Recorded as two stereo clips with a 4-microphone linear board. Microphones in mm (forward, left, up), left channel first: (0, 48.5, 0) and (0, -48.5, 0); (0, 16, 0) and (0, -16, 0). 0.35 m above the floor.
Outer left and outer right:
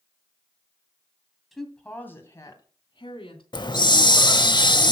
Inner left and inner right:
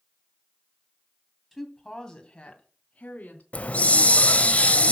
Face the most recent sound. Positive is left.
turn(degrees=50)  # may be behind; listen again after turning